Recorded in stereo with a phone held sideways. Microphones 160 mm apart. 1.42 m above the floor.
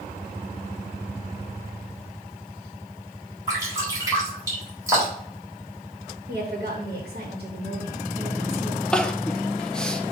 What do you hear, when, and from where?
3.5 s dripping: 20° right (ahead or behind), 3.5 m
6.3 s a woman speaking: 75° right (ahead or behind), 1.8 m
8.9 s crying: 5° left (ahead or behind), 0.5 m